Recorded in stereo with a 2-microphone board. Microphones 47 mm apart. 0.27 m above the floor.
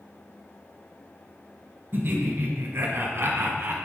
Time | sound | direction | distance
1.9 | laughter | 50° right (ahead or behind) | 1.6 m